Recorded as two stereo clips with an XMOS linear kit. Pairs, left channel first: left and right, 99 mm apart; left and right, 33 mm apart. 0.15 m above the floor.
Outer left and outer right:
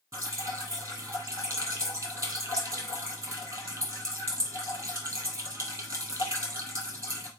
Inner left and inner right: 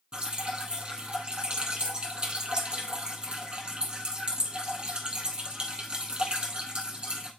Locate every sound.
0.1 s dripping: 25° right (ahead or behind), 1.9 m